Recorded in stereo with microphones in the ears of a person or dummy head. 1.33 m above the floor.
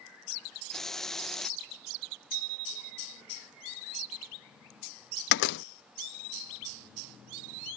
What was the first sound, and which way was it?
A hiss, 5° left (ahead or behind).